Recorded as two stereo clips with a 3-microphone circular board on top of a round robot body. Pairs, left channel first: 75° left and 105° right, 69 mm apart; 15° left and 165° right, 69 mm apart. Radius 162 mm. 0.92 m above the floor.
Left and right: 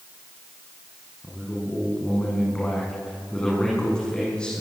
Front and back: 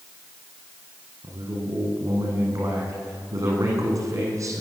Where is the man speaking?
155° left, 9 m.